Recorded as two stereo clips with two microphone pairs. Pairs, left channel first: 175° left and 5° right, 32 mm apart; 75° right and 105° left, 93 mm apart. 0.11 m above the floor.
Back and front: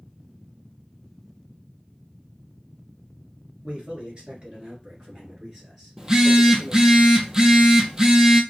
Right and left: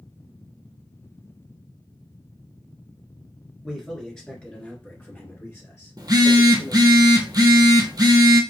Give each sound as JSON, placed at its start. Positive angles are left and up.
{"t": 3.6, "sound": "a man speaking", "azimuth_deg": 10, "distance_m": 2.0}
{"t": 6.0, "sound": "a phone buzzing", "azimuth_deg": 65, "distance_m": 0.7}